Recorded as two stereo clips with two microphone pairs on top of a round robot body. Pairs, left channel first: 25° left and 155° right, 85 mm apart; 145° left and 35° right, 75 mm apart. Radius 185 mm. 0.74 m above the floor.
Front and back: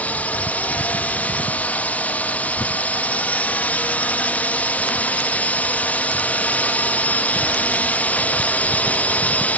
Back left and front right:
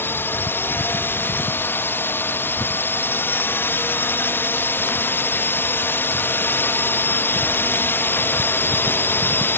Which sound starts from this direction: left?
A drone, at 0.0 s.